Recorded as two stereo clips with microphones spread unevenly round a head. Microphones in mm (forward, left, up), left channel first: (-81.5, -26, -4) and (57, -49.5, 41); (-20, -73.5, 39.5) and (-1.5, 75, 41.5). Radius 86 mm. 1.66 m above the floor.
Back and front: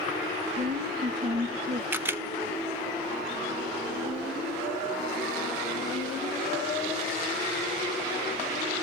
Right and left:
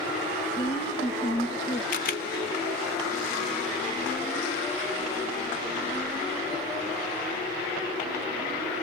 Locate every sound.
0.6 s a woman speaking: 40° right, 2 m
1.9 s a camera shutter: 65° right, 0.6 m